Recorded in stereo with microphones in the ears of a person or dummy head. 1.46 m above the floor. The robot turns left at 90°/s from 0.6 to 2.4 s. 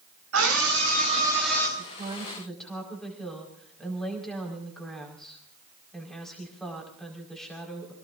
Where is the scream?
100° right, 8.5 m; by 1.7 s 160° left, 8.5 m.